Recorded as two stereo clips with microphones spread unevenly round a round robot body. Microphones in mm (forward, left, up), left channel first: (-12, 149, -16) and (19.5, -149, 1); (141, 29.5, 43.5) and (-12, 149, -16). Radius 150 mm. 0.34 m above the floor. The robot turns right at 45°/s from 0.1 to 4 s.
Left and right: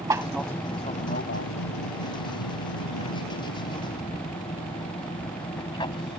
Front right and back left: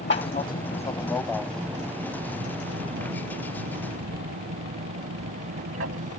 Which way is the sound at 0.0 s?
5° right.